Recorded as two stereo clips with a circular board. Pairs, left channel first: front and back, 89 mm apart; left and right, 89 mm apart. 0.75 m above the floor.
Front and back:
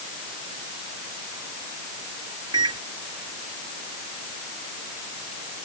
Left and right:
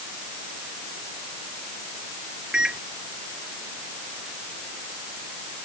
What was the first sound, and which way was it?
A microwave, 170° right.